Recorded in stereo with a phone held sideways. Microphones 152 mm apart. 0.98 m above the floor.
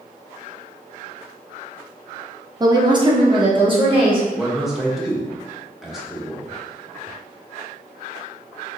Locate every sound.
2.6 s a woman speaking: 25° right (ahead or behind), 0.6 m; by 4.2 s 35° right (ahead or behind), 1.8 m
4.3 s a man speaking: 5° right (ahead or behind), 1.0 m